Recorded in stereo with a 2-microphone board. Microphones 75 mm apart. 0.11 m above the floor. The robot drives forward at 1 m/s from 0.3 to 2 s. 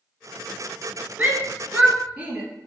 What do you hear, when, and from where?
1.2 s a shout: 20° right (ahead or behind), 1.2 m; by 2.4 s 15° right (ahead or behind), 1.6 m